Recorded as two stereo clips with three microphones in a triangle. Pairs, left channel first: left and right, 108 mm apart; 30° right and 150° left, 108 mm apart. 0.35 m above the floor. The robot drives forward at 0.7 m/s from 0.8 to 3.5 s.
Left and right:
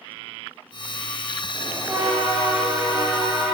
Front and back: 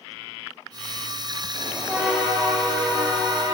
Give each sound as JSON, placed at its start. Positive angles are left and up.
{"t": 1.5, "sound": "a bell", "azimuth_deg": -130, "distance_m": 0.8}